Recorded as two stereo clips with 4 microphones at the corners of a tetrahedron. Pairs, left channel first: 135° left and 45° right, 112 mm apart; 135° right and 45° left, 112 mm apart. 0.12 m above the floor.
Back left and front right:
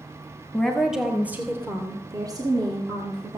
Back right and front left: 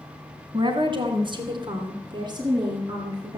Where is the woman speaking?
55° left, 1.7 m; by 3.4 s 10° right, 3 m.